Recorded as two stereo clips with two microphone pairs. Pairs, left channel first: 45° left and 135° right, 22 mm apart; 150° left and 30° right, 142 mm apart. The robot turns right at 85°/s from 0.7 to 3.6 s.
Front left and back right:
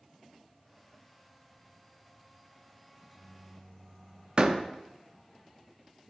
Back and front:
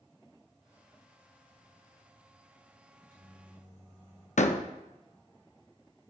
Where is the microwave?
60° right, 3 m; by 4.3 s straight ahead, 3 m.